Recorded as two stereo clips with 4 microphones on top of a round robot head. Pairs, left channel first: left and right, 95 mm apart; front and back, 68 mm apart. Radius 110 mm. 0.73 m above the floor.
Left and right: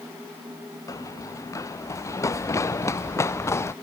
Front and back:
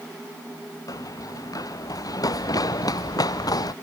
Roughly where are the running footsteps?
Ahead left.